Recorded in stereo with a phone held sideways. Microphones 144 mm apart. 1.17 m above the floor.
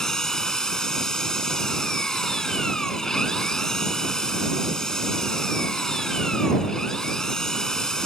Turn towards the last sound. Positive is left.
turn(degrees=5)  # may be behind; listen again after turning